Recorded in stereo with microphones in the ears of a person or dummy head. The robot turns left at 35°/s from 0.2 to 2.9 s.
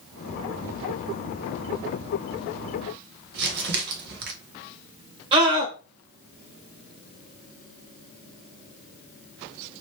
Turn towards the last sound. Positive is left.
turn(degrees=-25)  # may be behind; listen again after turning